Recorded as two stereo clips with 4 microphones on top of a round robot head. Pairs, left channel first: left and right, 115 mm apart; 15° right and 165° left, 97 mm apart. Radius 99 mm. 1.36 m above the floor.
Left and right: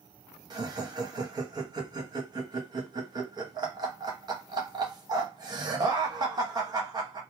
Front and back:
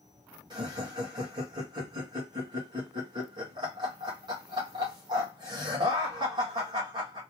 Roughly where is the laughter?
Behind right.